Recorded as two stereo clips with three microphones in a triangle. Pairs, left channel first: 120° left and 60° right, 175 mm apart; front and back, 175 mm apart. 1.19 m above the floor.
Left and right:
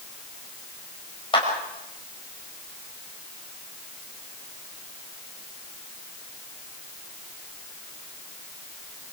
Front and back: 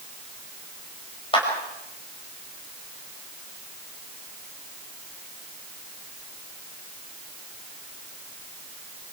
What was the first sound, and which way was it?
A clap, 60° left.